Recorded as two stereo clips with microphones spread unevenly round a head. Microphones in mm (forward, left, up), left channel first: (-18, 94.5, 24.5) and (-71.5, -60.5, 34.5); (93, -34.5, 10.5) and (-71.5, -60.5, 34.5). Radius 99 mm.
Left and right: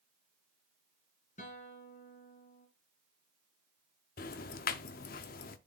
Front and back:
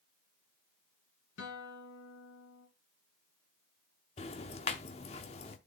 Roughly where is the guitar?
Ahead.